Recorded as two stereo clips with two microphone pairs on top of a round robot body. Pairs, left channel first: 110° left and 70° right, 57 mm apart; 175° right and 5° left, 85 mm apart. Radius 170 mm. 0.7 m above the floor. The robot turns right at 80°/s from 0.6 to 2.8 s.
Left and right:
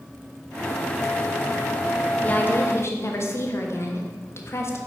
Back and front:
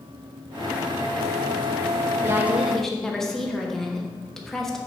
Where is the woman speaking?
55° left, 1.4 m; by 4.8 s 100° left, 1.4 m.